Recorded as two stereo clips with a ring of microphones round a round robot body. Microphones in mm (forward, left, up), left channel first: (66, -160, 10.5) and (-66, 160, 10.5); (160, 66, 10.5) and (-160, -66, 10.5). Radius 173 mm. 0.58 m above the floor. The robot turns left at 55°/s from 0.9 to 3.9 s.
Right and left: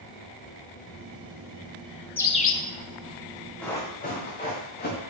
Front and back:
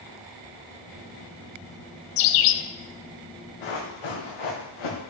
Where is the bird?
15° left, 0.6 m; by 2.6 s 10° right, 0.6 m.